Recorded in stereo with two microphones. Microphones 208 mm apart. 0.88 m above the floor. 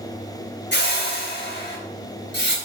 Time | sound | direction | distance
0.7 | a whoosh | 60° left (ahead or behind) | 3.5 m